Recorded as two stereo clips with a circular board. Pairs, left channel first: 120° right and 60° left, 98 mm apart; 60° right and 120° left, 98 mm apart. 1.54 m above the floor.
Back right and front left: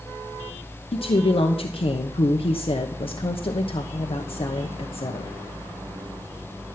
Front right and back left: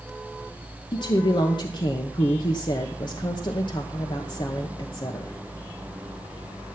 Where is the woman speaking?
100° right, 1.0 m.